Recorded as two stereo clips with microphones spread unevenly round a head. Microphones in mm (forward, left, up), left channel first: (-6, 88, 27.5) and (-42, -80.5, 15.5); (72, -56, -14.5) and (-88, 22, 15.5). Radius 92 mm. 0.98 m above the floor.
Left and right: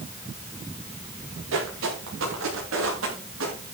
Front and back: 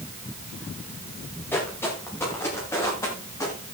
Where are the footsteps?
105° right, 8.5 m; by 3.5 s 100° right, 10 m.